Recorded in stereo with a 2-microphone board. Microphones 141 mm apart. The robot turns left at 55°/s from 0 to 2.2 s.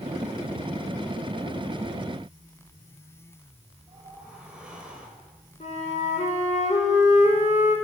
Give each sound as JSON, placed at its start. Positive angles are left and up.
{"t": 3.9, "sound": "a whoosh", "side_deg": -5, "distance_m": 4.0}
{"t": 5.6, "sound": "a flute", "side_deg": 60, "distance_m": 4.0}